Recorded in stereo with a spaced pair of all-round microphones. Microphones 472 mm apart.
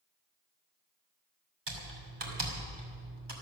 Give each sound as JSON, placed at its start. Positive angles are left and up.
{"t": 1.7, "sound": "typing on a keyboard", "side_deg": -60, "distance_m": 2.5}